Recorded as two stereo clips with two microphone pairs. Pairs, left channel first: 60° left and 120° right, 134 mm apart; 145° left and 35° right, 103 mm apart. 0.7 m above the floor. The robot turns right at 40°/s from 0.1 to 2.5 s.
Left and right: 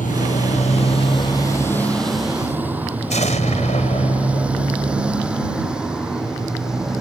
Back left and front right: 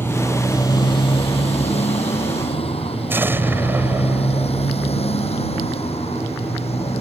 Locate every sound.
0.0 s a motorcycle: 75° left; by 7.0 s 155° left
3.1 s an explosion: 35° left